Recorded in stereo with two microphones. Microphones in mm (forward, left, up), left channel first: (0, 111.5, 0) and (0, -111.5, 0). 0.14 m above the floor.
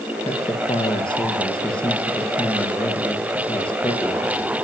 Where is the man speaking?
20° left (ahead or behind), 3 m.